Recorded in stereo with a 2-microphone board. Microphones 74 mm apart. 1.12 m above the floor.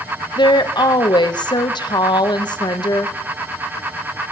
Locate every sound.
0.4 s a woman speaking: 85° left, 0.7 m